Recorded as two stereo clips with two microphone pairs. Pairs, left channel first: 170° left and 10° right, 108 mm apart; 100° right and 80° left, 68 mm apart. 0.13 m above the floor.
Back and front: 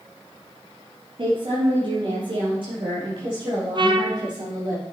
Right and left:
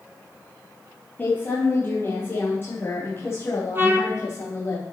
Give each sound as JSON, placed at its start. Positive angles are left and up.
{"t": 1.2, "sound": "a woman speaking", "azimuth_deg": -40, "distance_m": 2.5}
{"t": 3.8, "sound": "a trumpet", "azimuth_deg": 25, "distance_m": 1.0}